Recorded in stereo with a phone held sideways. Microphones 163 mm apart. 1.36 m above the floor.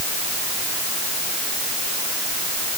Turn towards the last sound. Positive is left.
No sound to turn to.